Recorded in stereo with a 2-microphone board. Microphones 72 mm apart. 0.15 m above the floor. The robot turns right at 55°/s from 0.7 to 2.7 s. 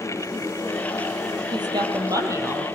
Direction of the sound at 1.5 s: 90° right.